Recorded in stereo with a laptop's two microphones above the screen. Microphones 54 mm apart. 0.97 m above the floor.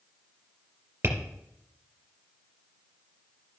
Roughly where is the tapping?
Right.